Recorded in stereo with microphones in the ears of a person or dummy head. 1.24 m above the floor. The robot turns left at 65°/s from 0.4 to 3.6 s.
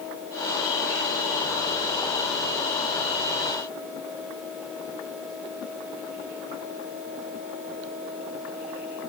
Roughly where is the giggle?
No giggle in this recording.